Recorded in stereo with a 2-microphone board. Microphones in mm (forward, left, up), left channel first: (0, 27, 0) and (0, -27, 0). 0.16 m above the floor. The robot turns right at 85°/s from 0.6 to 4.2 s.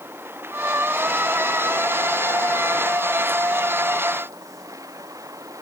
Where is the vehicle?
45° right; by 5.6 s 100° right.